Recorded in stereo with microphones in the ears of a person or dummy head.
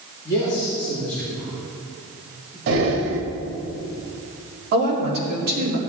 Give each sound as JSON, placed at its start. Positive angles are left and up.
{"t": 0.2, "sound": "a man speaking", "side_deg": 20, "distance_m": 3.5}
{"t": 2.7, "sound": "breathing", "side_deg": -65, "distance_m": 1.6}
{"t": 4.7, "sound": "a woman speaking", "side_deg": -50, "distance_m": 4.0}